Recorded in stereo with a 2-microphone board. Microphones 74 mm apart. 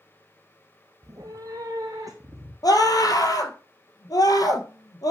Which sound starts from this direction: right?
A cat meowing, at 1.0 s.